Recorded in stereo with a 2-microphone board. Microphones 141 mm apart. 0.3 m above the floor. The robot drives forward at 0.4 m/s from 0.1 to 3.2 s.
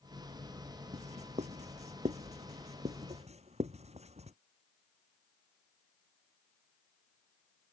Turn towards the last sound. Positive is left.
turn(degrees=-50)  # may be behind; listen again after turning